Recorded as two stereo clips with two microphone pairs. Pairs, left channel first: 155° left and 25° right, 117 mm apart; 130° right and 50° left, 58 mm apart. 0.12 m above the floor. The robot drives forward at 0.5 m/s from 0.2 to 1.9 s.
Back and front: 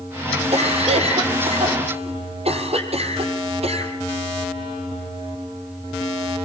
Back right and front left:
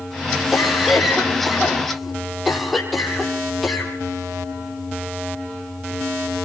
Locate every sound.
0.5 s a cough: 35° right, 5.5 m; by 3.9 s 40° right, 5 m